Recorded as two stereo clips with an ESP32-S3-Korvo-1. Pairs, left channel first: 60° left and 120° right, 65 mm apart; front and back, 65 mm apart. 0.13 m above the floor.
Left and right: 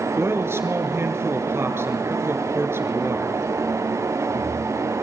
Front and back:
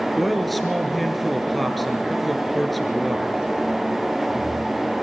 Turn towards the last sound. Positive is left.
turn(degrees=-90)